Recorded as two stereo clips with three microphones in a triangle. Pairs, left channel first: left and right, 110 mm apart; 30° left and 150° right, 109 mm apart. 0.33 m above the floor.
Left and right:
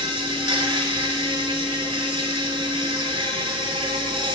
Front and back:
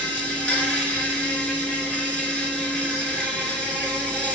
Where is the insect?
50° right, 1.1 m.